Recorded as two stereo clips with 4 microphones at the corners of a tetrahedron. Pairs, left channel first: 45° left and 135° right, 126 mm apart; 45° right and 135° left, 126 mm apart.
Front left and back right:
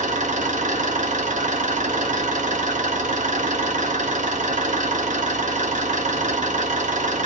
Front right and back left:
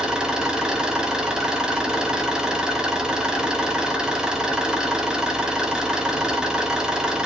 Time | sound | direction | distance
0.0 | an engine running | 140° right | 1.9 m